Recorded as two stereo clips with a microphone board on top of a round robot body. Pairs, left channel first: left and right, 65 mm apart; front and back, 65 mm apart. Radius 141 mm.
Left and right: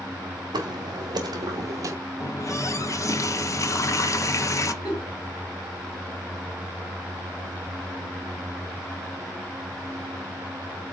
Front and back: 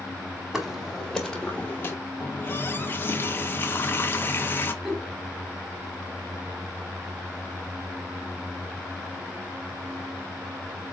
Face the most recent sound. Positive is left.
turn(degrees=95)